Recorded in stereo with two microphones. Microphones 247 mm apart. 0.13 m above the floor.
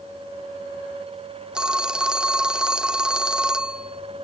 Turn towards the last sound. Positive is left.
turn(degrees=-5)  # may be behind; listen again after turning